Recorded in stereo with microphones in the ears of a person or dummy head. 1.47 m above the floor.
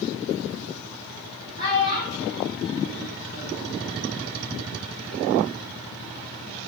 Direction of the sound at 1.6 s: 20° right (ahead or behind).